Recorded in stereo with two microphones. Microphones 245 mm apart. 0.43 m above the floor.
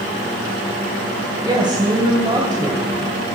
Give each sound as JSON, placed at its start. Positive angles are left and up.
{"t": 1.4, "sound": "a woman speaking", "side_deg": -15, "distance_m": 3.0}